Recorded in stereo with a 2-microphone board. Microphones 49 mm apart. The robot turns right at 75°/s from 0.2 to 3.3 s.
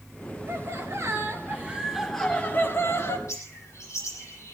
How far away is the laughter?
About 5 m.